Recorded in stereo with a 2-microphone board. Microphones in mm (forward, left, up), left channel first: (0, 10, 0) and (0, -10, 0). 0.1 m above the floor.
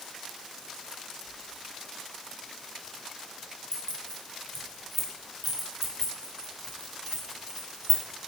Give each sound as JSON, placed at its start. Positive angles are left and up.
{"t": 3.7, "sound": "keys jangling", "side_deg": 40, "distance_m": 1.3}